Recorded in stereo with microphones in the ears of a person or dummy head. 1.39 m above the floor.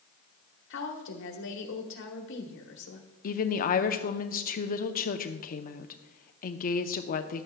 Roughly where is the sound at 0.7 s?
Left.